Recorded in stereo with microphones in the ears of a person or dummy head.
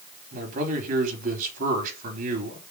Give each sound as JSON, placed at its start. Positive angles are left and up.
{"t": 0.3, "sound": "a man speaking", "side_deg": -50, "distance_m": 4.0}